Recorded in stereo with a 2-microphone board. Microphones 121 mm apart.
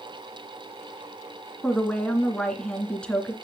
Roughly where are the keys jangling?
No keys jangling in this recording.